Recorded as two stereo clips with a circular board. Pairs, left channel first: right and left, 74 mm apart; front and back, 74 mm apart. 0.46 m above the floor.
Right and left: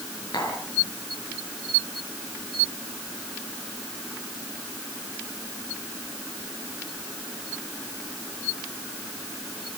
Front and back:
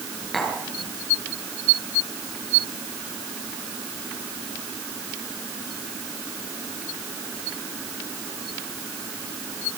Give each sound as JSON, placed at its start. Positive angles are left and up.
{"t": 0.3, "sound": "tapping", "azimuth_deg": -85, "distance_m": 6.5}